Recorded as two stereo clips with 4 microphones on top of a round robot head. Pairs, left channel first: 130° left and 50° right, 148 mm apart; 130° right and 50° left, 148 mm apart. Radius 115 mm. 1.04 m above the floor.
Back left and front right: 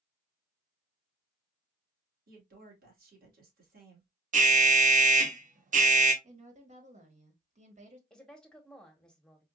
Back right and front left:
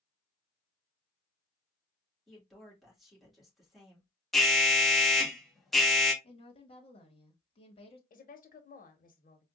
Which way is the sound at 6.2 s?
80° right.